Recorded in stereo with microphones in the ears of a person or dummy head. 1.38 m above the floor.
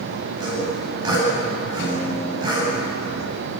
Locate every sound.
0.4 s sawing: 25° right (ahead or behind), 8.5 m
1.8 s a guitar: 65° left (ahead or behind), 4 m